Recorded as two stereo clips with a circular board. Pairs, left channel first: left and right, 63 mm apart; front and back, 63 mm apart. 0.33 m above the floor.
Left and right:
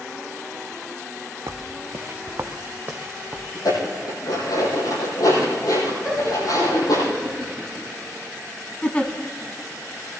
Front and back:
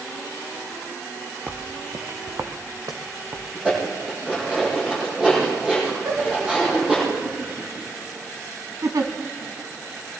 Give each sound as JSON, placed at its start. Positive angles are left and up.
{"t": 1.5, "sound": "footsteps", "azimuth_deg": -120, "distance_m": 0.8}
{"t": 3.5, "sound": "dishes clattering", "azimuth_deg": 105, "distance_m": 8.5}
{"t": 6.0, "sound": "laughter", "azimuth_deg": -170, "distance_m": 3.0}
{"t": 8.8, "sound": "a giggle", "azimuth_deg": 155, "distance_m": 1.3}